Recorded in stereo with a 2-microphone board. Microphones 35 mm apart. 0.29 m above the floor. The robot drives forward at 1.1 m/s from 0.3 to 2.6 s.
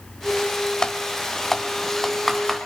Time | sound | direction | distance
0.8 | typing on a keyboard | 20° left (ahead or behind) | 0.6 m